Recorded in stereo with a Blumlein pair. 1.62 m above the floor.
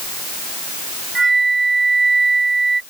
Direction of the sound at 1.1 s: 10° right.